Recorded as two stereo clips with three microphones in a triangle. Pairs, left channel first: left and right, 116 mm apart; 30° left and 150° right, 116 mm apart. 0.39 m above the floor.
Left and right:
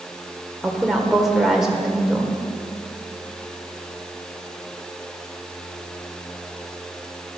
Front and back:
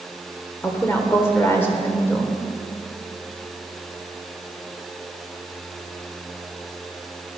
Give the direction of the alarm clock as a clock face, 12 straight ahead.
I don't hear an alarm clock.